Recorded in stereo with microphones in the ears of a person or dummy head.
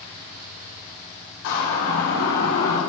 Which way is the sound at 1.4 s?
70° left (ahead or behind).